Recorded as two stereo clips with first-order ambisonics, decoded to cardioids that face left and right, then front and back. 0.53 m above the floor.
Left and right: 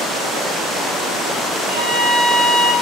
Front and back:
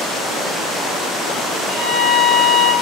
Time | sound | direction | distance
1.7 | a violin | 70° right | 0.7 m